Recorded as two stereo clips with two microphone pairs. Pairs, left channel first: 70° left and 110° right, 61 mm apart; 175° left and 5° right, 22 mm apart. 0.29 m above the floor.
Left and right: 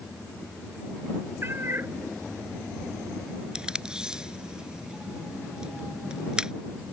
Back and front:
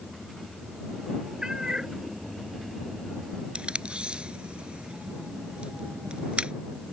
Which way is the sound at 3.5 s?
35° right.